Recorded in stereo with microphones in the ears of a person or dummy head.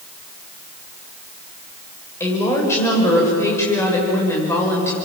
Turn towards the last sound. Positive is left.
turn(degrees=15)  # may be behind; listen again after turning